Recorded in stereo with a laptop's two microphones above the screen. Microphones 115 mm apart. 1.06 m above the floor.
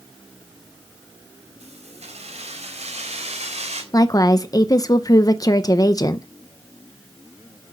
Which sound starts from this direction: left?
A woman speaking, at 3.9 s.